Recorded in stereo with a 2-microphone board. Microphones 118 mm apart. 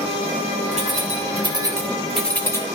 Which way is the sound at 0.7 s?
70° right (ahead or behind).